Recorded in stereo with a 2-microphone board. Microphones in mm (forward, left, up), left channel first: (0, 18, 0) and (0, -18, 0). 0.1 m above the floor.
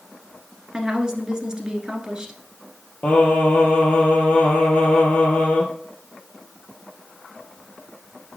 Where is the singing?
35° left (ahead or behind), 2 m.